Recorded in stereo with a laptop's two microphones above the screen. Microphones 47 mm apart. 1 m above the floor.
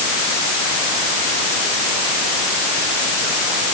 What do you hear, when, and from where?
Only background noise.